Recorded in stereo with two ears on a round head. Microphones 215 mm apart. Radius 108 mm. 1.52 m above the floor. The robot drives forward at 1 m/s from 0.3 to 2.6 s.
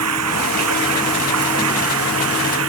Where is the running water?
75° right (ahead or behind); by 2.7 s 65° right (ahead or behind).